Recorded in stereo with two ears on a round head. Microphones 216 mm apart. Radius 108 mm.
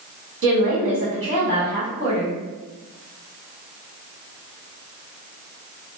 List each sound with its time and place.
0.4 s a woman speaking: 55° right (ahead or behind), 1.8 m